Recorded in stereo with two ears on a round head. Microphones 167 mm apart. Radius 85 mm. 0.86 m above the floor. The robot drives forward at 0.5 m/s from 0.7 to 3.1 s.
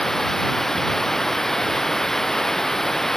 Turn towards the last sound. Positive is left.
turn(degrees=0)  # may be behind; listen again after turning